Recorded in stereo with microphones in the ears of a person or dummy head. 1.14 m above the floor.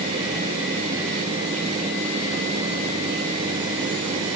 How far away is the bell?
No bell in this recording.